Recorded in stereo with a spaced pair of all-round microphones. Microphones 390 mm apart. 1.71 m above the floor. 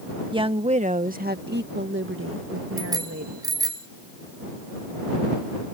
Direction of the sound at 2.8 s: 10° right (ahead or behind).